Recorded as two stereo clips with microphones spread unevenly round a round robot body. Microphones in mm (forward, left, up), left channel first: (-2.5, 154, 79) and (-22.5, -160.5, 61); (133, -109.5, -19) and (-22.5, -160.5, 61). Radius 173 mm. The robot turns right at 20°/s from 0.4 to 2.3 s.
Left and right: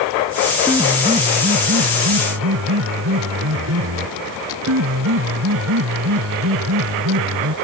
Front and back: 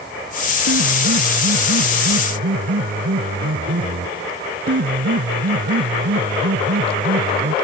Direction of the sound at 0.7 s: 175° right.